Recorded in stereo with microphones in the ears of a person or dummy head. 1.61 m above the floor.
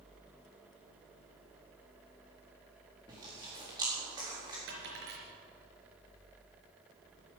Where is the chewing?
20° right (ahead or behind), 4 m.